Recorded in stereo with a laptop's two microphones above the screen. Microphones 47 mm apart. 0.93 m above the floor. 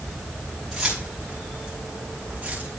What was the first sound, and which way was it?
Keys jangling, 5° right (ahead or behind).